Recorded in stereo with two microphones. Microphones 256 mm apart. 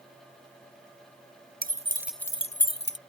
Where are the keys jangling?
35° right (ahead or behind); by 3.0 s 45° left (ahead or behind).